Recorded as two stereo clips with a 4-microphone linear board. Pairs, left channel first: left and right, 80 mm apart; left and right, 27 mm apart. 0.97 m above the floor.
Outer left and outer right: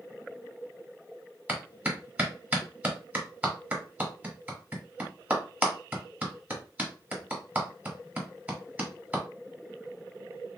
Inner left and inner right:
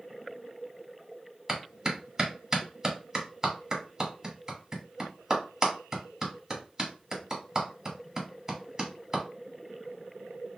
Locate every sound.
1.5 s a clap: 20° right (ahead or behind), 1.7 m